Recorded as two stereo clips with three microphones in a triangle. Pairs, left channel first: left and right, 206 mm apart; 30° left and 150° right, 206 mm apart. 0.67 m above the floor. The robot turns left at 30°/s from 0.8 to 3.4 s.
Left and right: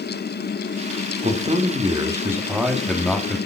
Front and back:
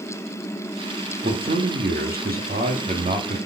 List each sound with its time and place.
1.2 s a man speaking: 130° right, 1.6 m; by 3.4 s 165° left, 1.6 m